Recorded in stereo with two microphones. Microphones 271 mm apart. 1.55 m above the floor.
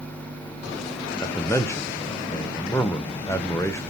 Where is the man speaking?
10° left (ahead or behind), 0.7 m.